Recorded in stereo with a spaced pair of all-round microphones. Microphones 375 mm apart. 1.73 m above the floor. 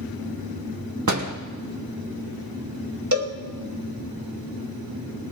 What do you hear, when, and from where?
1.1 s a door slam: 50° right (ahead or behind), 1.2 m
3.1 s a cowbell: 50° right (ahead or behind), 2 m